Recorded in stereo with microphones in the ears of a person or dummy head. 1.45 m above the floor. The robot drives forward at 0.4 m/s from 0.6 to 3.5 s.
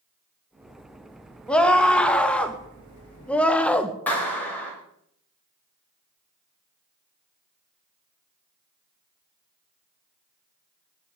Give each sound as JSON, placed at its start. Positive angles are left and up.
{"t": 1.5, "sound": "a scream", "side_deg": 5, "distance_m": 2.5}
{"t": 4.1, "sound": "a clap", "side_deg": 5, "distance_m": 7.0}